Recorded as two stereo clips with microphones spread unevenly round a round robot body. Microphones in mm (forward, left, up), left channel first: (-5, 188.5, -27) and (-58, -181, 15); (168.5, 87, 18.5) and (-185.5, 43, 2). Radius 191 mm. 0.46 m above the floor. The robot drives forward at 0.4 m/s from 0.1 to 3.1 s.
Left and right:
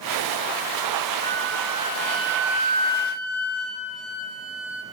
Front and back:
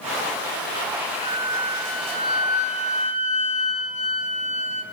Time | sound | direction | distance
1.2 | a flute | 110° left | 4 m